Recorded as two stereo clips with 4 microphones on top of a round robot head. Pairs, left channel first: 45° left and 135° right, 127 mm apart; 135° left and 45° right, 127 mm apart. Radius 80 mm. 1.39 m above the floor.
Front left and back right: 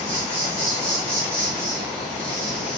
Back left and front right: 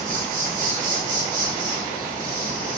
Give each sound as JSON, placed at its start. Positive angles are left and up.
{"t": 0.0, "sound": "an insect", "azimuth_deg": -60, "distance_m": 3.0}